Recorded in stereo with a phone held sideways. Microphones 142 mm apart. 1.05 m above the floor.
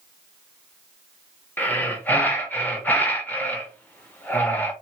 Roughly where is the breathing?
Centre.